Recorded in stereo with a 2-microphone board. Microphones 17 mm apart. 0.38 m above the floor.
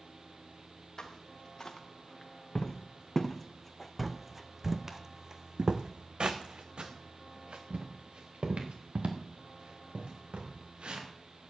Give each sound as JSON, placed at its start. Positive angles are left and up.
{"t": 1.0, "sound": "footsteps", "side_deg": 45, "distance_m": 2.5}